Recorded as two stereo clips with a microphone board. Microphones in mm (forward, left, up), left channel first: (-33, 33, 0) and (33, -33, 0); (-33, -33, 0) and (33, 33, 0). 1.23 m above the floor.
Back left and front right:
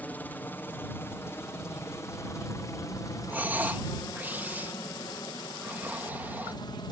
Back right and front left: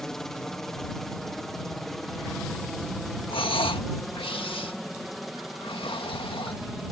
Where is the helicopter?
150° left; by 6.9 s 135° left.